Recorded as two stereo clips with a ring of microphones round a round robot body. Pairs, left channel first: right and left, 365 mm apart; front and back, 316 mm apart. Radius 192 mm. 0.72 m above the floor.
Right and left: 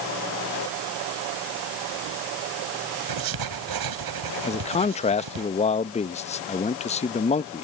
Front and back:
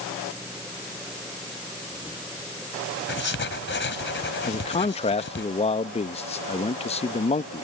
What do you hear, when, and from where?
3.1 s writing: 55° left
4.5 s a man speaking: 40° right